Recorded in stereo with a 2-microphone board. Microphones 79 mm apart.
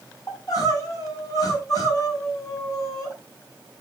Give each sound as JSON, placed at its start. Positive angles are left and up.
{"t": 0.3, "sound": "crying", "side_deg": 50, "distance_m": 4.5}